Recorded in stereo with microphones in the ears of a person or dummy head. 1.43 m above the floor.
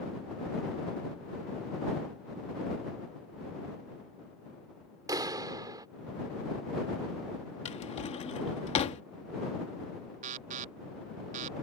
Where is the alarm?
40° right (ahead or behind).